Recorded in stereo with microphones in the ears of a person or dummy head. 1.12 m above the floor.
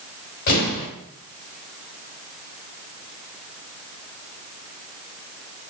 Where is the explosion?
60° left (ahead or behind), 1.7 m.